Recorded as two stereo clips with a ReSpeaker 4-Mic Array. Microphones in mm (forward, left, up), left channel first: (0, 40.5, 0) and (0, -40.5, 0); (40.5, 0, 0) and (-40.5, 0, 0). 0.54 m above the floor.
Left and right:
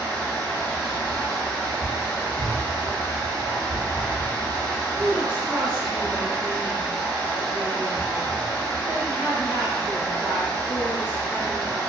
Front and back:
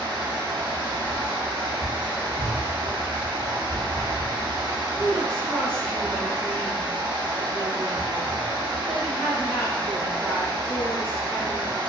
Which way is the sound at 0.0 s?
160° left.